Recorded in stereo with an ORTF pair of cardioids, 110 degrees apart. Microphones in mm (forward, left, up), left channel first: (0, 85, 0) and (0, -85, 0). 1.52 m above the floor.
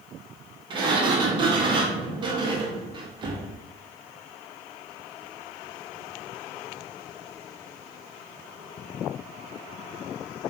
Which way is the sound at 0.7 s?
30° right.